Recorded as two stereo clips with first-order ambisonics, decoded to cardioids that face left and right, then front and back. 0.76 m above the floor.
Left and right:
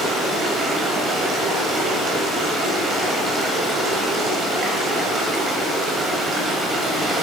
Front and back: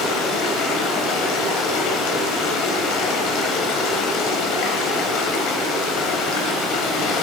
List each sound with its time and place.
0.0 s running water: 25° right, 1.3 m